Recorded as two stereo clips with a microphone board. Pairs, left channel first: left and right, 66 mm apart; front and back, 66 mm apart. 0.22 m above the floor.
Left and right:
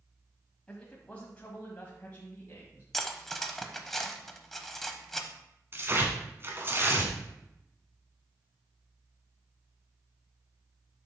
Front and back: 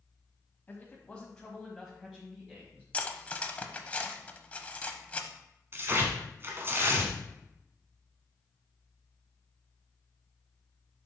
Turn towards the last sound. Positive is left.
turn(degrees=-135)